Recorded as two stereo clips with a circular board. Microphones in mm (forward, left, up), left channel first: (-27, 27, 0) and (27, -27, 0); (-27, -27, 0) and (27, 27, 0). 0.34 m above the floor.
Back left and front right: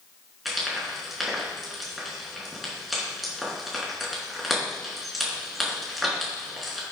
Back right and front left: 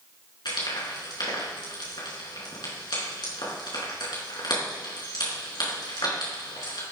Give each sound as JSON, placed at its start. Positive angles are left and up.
{"t": 0.5, "sound": "frying", "azimuth_deg": -135, "distance_m": 4.5}